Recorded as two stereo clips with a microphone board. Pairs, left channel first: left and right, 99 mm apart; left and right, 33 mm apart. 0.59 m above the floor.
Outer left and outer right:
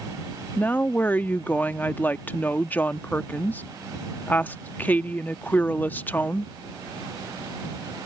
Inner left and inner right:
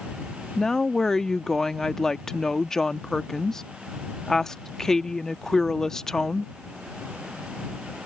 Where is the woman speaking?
20° left (ahead or behind).